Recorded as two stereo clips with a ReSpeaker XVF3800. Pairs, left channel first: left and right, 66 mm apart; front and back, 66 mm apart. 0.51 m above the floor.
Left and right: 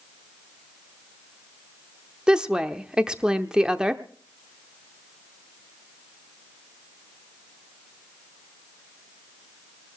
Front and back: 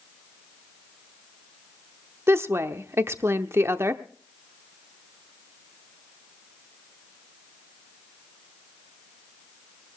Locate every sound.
2.3 s a woman speaking: 160° right, 0.8 m